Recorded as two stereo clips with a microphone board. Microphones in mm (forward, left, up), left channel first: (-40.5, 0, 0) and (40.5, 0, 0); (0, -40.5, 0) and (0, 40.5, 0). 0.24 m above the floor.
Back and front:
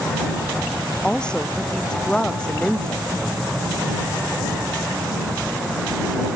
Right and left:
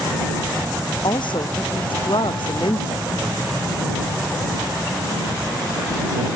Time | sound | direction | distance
1.0 | a woman speaking | 100° right | ?